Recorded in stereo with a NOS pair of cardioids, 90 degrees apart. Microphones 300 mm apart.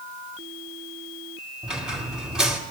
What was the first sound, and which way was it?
A squeak, straight ahead.